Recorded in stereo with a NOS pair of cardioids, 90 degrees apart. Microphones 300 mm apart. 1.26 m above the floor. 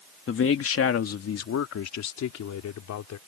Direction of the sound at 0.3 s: 45° left.